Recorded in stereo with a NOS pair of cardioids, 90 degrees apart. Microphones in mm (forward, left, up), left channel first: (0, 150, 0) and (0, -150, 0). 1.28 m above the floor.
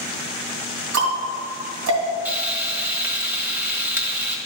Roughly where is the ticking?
Ahead right.